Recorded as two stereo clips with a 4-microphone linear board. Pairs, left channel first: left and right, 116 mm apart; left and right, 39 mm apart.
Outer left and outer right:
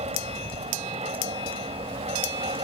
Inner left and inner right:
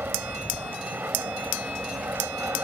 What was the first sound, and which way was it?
An aircraft, 70° right (ahead or behind).